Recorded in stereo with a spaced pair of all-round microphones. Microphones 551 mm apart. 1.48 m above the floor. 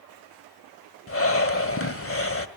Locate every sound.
1.1 s breathing: 25° left (ahead or behind), 1.4 m